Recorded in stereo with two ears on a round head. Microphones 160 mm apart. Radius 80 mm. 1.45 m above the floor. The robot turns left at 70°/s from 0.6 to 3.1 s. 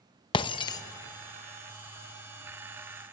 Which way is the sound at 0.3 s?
30° left (ahead or behind).